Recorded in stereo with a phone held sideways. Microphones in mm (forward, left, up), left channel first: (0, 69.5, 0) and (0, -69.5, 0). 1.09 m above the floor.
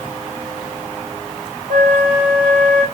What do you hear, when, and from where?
1.7 s a flute: 70° right (ahead or behind), 4 m